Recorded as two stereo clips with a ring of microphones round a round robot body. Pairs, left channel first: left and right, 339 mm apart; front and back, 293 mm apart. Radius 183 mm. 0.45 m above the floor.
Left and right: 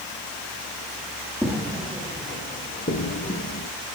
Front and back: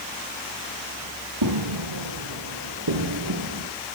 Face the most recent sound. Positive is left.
turn(degrees=145)